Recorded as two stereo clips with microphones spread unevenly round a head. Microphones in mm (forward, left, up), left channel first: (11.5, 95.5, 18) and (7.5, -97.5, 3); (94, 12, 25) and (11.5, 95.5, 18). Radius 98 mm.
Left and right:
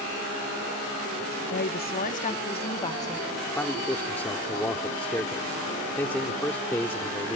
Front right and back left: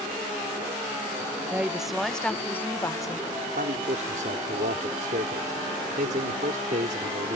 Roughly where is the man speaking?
Behind.